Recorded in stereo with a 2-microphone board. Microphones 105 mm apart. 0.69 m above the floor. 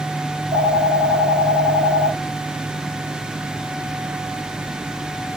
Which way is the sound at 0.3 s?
15° right (ahead or behind).